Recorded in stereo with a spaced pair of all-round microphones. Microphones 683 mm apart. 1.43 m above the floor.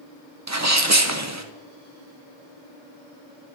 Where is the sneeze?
25° right (ahead or behind), 0.9 m.